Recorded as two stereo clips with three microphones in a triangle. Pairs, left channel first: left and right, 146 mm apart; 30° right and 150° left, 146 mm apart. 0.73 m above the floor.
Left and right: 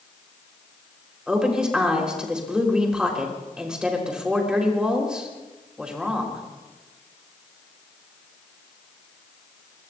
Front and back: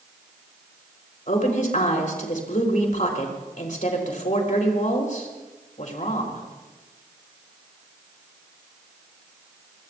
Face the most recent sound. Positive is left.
turn(degrees=-5)